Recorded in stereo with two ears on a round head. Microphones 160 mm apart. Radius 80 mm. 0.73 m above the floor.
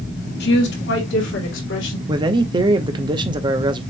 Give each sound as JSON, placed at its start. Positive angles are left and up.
{"t": 0.4, "sound": "a woman speaking", "side_deg": 60, "distance_m": 1.9}
{"t": 2.1, "sound": "a man speaking", "side_deg": -25, "distance_m": 0.7}